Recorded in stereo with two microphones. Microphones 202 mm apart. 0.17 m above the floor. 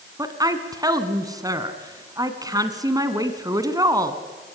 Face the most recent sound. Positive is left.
turn(degrees=-20)  # may be behind; listen again after turning